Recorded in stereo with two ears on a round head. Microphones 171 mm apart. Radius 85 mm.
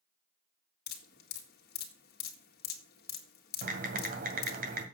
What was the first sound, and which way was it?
Dripping, 50° left (ahead or behind).